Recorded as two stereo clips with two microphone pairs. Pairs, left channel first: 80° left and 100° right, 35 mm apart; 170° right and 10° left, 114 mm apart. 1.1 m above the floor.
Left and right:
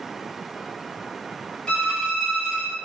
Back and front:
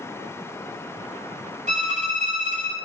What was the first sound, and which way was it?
A violin, 15° left.